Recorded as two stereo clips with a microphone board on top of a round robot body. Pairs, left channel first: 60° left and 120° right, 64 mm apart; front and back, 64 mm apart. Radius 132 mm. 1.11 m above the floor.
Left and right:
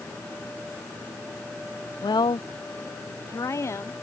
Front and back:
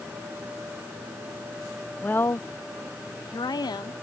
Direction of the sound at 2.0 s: 70° left.